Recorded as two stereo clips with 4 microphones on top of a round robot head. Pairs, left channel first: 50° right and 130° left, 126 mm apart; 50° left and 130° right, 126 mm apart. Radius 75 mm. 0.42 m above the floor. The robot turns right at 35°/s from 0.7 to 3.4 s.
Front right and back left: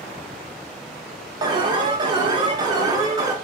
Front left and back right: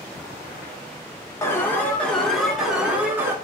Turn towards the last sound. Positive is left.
turn(degrees=175)